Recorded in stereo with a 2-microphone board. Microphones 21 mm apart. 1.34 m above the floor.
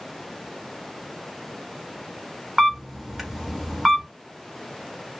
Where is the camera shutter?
15° right (ahead or behind), 0.9 m.